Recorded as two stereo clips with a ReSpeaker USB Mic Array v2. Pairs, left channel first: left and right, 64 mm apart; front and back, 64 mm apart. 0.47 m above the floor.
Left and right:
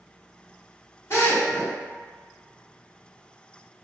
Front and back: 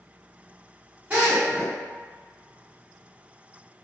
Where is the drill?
120° left, 1.5 m.